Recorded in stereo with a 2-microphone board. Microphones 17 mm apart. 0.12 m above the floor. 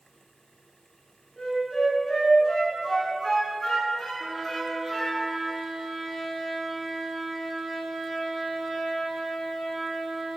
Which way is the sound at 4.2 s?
5° right (ahead or behind).